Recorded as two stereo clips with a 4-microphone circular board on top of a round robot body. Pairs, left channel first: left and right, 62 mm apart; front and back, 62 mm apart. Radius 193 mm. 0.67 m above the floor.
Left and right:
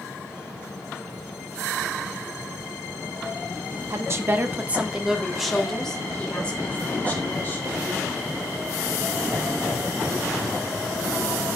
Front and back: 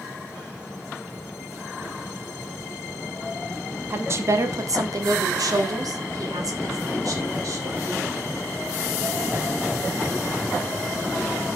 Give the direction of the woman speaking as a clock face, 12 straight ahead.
4 o'clock.